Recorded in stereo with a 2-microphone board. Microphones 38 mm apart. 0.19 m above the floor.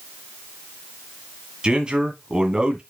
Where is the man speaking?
25° right (ahead or behind), 1.8 m.